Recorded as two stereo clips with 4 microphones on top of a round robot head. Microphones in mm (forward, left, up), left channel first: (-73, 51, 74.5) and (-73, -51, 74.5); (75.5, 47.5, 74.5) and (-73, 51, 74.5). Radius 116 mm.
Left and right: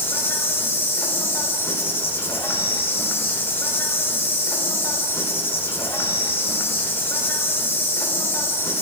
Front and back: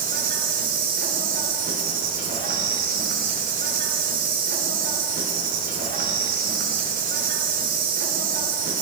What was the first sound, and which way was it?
An insect, 155° left.